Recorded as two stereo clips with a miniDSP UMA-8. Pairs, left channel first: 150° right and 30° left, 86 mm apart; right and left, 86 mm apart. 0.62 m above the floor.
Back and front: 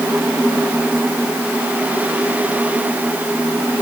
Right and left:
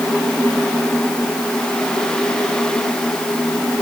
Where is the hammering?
No hammering in this recording.